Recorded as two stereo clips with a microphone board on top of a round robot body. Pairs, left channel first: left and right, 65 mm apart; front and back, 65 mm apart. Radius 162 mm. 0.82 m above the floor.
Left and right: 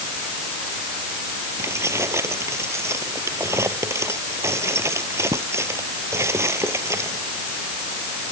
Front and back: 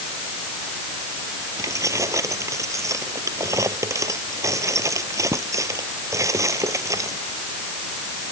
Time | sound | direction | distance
1.6 | keys jangling | 140° right | ?